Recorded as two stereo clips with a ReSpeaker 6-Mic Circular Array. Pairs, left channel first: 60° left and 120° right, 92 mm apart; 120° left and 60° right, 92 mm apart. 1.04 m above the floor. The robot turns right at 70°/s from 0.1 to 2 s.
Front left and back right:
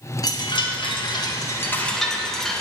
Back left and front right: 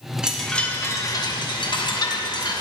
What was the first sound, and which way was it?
A chime, 20° left.